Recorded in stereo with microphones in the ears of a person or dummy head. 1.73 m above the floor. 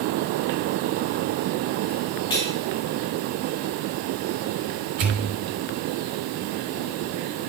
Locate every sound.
2.3 s cutlery clinking: 25° left (ahead or behind), 2.5 m
5.0 s a pop: 55° right (ahead or behind), 2.5 m